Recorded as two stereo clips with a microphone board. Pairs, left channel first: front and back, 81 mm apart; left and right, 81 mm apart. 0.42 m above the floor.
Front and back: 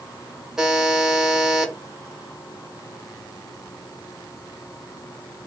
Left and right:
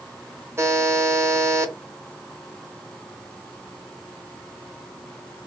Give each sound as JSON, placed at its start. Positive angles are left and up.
{"t": 0.6, "sound": "a buzzer", "azimuth_deg": -105, "distance_m": 0.9}